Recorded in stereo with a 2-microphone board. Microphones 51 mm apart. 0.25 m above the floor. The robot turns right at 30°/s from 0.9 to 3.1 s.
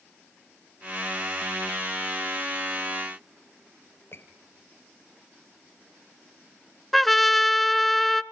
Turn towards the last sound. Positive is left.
turn(degrees=5)  # may be behind; listen again after turning